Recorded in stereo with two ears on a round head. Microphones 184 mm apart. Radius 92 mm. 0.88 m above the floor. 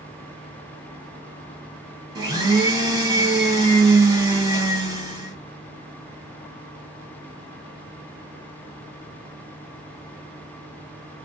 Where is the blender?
15° right (ahead or behind), 1.2 m.